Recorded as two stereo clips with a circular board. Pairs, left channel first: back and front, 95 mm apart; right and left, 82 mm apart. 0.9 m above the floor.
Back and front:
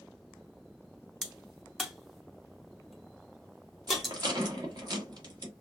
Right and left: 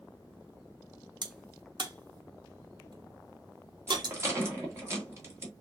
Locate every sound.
1.2 s a crack: 90° left, 0.7 m
3.9 s a rattle: 35° left, 1.6 m